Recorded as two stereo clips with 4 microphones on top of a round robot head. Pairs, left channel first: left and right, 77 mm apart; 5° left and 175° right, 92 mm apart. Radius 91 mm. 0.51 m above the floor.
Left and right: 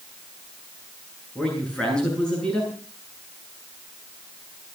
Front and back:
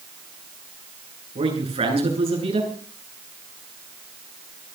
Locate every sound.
1.4 s a man speaking: 170° left, 9.5 m